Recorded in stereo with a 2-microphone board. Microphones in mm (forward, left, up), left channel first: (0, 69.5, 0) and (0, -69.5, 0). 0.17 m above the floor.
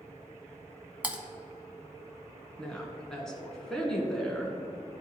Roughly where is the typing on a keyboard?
Centre.